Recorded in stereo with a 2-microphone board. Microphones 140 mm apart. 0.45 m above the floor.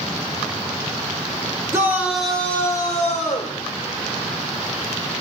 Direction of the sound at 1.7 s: 20° right (ahead or behind).